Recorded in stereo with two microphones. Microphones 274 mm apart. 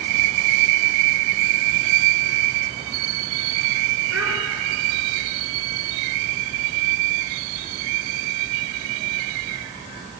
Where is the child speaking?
60° right (ahead or behind), 2 m.